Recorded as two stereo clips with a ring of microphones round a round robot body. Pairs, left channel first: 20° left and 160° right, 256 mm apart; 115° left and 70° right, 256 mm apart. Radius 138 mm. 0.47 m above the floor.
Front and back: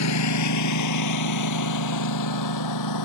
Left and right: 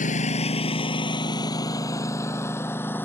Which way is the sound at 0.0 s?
50° left.